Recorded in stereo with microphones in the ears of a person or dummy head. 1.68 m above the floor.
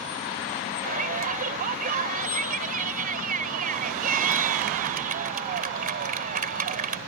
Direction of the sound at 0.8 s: 45° right (ahead or behind).